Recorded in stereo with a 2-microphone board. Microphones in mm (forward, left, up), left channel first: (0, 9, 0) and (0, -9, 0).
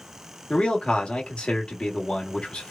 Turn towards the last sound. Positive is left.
turn(degrees=65)  # may be behind; listen again after turning